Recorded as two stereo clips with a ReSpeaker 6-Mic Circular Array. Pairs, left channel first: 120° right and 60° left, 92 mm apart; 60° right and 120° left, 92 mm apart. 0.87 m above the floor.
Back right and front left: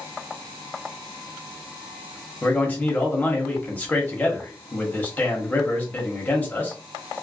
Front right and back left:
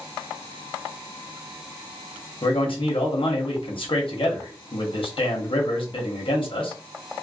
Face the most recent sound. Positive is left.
turn(degrees=-50)